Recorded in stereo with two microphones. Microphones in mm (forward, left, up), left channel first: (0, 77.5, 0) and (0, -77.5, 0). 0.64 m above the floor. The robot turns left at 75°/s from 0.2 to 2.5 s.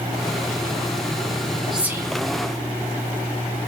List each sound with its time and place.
1.7 s whispering: centre (ahead or behind), 0.9 m; by 2.1 s 25° right (ahead or behind), 0.9 m